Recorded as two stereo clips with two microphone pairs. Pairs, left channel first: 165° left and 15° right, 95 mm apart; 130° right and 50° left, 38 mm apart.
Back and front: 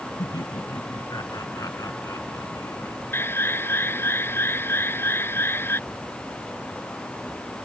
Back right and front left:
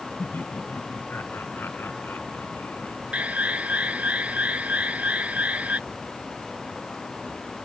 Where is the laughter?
150° right; by 3.0 s 135° right.